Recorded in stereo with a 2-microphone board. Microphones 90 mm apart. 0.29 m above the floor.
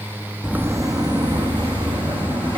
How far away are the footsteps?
About 0.6 m.